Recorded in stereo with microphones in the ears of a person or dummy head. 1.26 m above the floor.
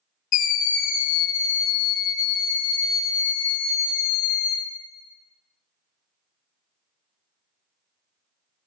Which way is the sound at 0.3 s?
40° left (ahead or behind).